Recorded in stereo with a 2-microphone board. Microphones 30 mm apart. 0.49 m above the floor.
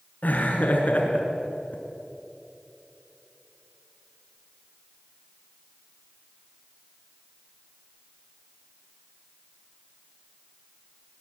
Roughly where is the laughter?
Left.